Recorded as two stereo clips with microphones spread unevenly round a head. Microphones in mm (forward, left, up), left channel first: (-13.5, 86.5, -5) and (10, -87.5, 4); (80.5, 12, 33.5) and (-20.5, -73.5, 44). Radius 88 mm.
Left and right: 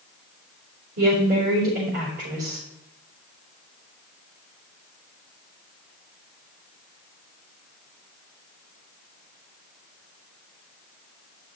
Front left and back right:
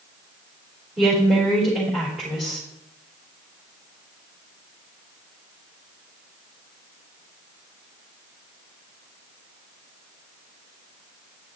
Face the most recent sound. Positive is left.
turn(degrees=-55)